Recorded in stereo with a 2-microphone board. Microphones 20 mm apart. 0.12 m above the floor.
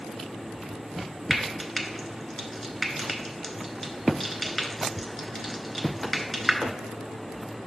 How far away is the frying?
About 0.9 m.